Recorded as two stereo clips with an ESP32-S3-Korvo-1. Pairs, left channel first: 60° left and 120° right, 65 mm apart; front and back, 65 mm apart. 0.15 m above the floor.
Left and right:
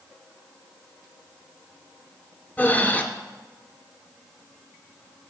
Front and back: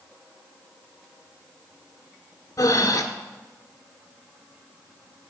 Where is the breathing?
5° right, 0.6 m.